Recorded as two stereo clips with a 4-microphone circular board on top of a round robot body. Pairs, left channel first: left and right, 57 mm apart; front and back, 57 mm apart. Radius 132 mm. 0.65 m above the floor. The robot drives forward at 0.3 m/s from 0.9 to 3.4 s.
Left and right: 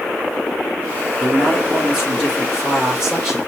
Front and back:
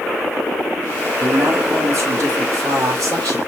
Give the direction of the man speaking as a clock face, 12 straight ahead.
5 o'clock.